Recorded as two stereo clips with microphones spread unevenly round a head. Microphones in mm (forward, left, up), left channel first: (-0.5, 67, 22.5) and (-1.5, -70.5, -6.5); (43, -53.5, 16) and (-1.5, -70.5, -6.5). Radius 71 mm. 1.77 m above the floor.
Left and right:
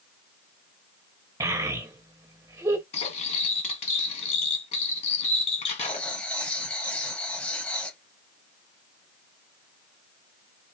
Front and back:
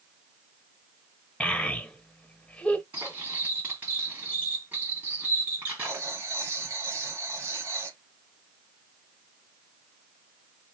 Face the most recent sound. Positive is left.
turn(degrees=145)